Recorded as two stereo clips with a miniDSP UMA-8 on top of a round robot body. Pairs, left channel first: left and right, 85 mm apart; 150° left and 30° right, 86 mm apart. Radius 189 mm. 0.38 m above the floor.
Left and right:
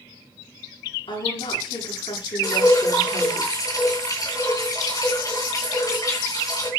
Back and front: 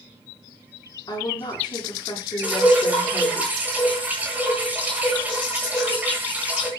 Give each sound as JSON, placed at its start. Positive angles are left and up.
{"t": 1.1, "sound": "a woman speaking", "azimuth_deg": 110, "distance_m": 8.5}
{"t": 2.4, "sound": "dripping", "azimuth_deg": 45, "distance_m": 9.0}